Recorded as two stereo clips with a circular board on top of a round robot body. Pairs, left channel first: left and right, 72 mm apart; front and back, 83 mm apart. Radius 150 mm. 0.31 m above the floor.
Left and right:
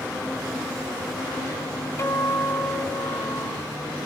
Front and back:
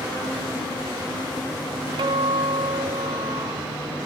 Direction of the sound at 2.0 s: 145° left.